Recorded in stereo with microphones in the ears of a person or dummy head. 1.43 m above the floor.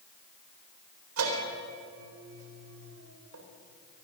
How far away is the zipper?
I don't hear a zipper.